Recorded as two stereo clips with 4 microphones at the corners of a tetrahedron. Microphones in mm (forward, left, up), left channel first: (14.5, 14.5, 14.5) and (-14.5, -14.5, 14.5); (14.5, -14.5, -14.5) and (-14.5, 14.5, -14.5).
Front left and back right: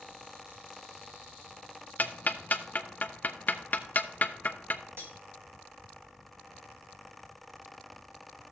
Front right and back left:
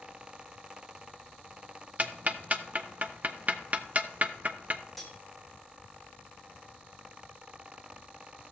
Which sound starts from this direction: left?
Ticking, at 2.0 s.